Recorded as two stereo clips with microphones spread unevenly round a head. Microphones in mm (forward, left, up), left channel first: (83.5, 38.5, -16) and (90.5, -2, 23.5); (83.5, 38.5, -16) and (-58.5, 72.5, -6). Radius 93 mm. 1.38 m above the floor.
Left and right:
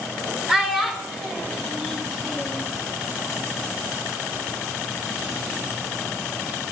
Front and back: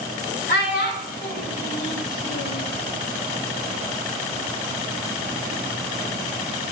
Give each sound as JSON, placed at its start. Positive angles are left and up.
{"t": 0.5, "sound": "a child speaking", "azimuth_deg": -10, "distance_m": 1.2}